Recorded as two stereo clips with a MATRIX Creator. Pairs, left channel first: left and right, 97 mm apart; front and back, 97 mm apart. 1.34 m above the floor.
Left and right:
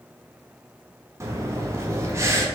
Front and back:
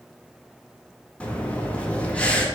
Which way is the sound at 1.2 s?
65° right.